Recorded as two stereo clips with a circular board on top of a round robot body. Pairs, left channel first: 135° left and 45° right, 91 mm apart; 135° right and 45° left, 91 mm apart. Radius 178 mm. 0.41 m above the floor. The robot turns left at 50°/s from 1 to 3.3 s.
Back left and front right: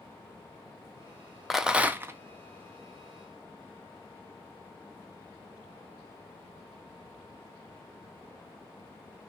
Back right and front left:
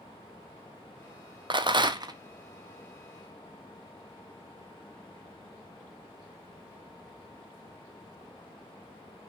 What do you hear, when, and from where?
1.5 s a rattle: 45° left, 0.7 m; by 2.2 s 10° left, 0.7 m